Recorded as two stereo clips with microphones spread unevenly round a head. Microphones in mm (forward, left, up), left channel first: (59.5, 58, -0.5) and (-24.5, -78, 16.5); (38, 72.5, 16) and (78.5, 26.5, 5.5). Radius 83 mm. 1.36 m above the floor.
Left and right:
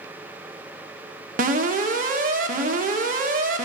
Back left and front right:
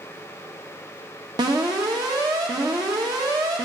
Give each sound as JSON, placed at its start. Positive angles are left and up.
{"t": 1.4, "sound": "an alarm", "azimuth_deg": -80, "distance_m": 1.3}